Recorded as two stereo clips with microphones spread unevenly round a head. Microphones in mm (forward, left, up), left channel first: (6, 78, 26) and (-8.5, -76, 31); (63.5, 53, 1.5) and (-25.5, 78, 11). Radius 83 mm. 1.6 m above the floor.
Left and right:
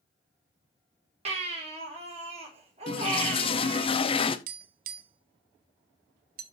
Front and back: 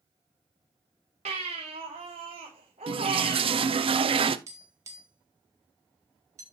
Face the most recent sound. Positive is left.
turn(degrees=-130)